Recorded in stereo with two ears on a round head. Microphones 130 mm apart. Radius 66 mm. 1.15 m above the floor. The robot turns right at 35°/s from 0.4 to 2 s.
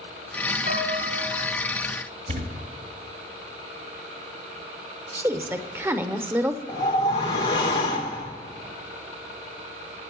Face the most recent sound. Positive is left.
turn(degrees=30)  # may be behind; listen again after turning